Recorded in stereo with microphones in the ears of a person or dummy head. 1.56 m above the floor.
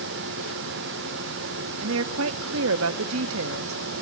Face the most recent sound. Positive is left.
turn(degrees=-75)  # may be behind; listen again after turning